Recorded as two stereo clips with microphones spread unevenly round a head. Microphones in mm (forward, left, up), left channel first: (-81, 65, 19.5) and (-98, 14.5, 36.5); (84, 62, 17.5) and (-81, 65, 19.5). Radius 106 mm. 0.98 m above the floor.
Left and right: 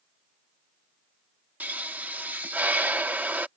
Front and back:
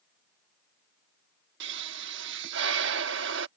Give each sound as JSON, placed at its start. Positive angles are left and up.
{"t": 1.6, "sound": "a pop", "azimuth_deg": -165}